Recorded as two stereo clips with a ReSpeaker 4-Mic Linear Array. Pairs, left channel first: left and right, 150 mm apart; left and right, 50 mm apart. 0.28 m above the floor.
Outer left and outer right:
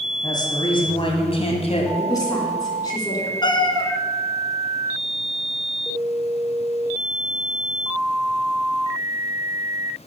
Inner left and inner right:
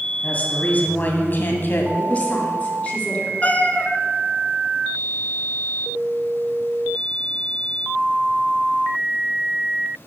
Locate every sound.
0.2 s a woman speaking: 25° left (ahead or behind), 2 m; by 1.9 s 45° left (ahead or behind), 1.9 m
2.0 s a woman speaking: 25° left (ahead or behind), 3 m
3.4 s a cat meowing: 30° left (ahead or behind), 1.1 m